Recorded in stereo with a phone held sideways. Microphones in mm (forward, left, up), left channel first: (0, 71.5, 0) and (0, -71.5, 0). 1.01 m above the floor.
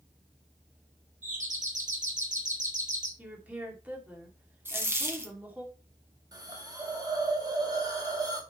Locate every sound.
1.2 s a doorbell: 55° right (ahead or behind), 2.5 m
3.2 s a woman speaking: 10° right (ahead or behind), 2.5 m
4.7 s a dropped coin: 15° right (ahead or behind), 1.6 m
6.3 s a hiss: 25° right (ahead or behind), 1.8 m